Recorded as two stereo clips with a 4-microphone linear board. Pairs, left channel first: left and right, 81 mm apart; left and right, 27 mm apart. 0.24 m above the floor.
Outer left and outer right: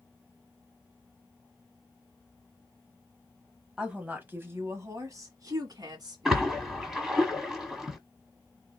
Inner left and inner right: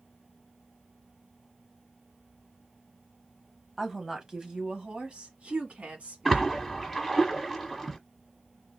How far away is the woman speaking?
About 1.3 m.